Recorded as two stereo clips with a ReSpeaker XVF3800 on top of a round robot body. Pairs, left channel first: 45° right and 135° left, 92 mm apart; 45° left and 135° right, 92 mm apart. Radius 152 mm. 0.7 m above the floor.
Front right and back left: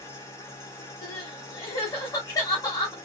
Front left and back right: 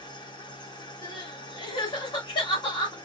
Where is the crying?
10° left, 1.0 m.